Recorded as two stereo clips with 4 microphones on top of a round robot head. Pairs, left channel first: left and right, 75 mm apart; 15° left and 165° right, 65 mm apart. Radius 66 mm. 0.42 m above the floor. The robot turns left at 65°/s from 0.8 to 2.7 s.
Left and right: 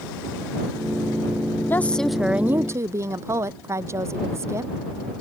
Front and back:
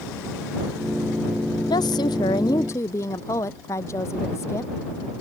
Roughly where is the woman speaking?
Ahead left.